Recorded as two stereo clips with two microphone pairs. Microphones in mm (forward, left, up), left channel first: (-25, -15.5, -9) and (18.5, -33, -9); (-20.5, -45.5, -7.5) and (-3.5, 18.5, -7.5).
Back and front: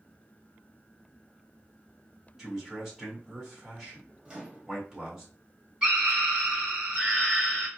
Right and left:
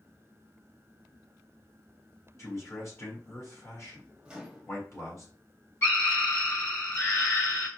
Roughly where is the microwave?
Ahead.